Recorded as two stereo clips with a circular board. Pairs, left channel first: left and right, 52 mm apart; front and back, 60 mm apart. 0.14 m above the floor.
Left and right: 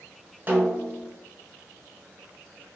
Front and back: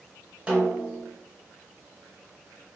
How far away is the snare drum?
About 1.1 m.